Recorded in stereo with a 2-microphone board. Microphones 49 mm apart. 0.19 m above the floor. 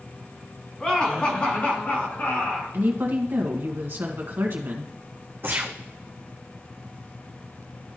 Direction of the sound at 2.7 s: 50° right (ahead or behind).